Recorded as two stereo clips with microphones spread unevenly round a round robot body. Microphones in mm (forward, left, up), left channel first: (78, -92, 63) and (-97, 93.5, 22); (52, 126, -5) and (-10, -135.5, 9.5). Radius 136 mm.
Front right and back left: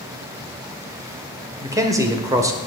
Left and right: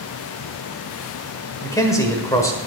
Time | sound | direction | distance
1.6 | a man speaking | 130° left | 1.3 m